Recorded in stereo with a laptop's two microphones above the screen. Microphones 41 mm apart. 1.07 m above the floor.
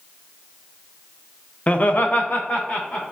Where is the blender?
No blender in this recording.